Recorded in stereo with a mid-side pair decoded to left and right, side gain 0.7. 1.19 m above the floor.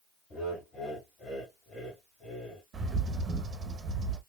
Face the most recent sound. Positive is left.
turn(degrees=-25)